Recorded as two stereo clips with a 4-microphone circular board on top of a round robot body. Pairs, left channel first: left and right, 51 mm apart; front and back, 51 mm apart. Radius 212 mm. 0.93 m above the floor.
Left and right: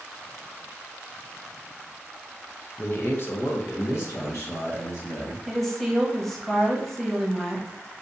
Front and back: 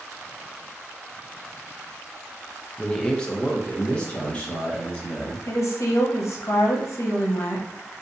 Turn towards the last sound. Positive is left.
turn(degrees=5)